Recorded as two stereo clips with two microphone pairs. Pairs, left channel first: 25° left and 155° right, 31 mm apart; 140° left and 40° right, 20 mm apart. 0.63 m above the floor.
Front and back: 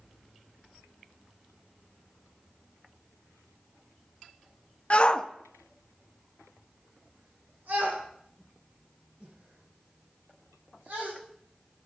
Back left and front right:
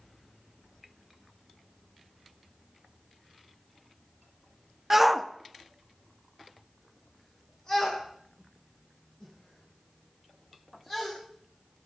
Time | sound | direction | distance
4.9 | a shout | 30° left | 0.7 m